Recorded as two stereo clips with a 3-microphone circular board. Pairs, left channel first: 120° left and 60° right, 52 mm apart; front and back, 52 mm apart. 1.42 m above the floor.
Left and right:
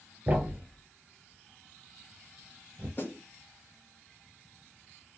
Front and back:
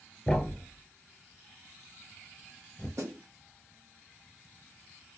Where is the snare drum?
165° left, 0.9 m.